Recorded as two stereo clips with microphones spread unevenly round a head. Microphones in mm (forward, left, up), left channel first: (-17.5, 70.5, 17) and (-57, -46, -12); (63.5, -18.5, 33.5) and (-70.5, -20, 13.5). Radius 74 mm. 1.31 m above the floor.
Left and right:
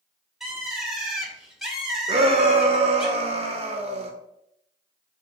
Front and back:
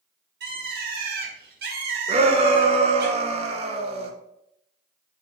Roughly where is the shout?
Behind right.